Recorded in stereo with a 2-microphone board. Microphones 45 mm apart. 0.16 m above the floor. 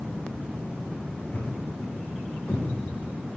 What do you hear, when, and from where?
1.3 s a thud: 70° left (ahead or behind), 3.5 m